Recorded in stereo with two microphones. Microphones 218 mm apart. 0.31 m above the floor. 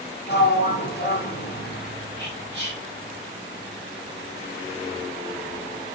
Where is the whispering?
50° right (ahead or behind), 2.5 m.